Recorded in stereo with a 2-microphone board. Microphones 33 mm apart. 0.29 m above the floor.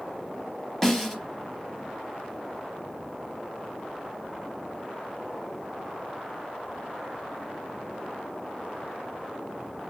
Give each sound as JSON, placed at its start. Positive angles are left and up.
{"t": 0.8, "sound": "a snare drum", "side_deg": 10, "distance_m": 0.6}